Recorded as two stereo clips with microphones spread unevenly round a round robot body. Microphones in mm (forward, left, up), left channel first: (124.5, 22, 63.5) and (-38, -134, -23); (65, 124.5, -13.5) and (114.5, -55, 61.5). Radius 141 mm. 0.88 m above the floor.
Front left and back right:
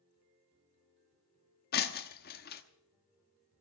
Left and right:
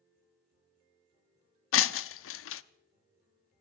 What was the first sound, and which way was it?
Breaking glass, 100° left.